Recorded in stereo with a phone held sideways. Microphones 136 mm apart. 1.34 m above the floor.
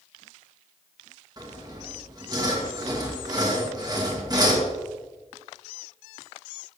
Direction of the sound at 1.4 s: 30° right (ahead or behind).